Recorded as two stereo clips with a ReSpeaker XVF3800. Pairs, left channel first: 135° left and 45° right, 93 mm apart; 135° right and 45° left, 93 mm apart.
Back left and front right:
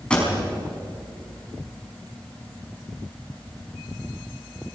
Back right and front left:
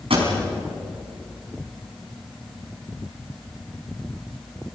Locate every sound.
0.1 s a pop: 55° left, 5.5 m